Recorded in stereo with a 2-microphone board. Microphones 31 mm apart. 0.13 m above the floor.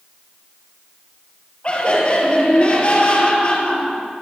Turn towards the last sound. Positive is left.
turn(degrees=35)  # may be behind; listen again after turning